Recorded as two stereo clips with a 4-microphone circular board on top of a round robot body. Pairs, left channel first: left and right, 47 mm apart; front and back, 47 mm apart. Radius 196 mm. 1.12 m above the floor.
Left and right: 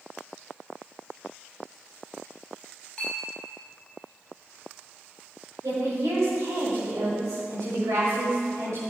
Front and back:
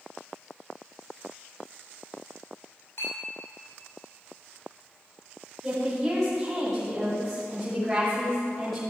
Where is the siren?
I don't hear a siren.